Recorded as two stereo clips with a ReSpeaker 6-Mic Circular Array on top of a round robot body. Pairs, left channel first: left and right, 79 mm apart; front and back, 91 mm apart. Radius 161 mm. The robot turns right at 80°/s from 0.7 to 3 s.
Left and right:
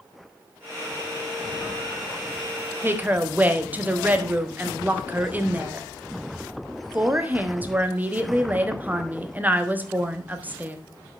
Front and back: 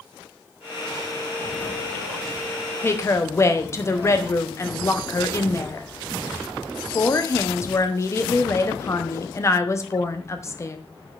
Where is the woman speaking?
50° right, 1.3 m; by 10.8 s 35° right, 1.3 m.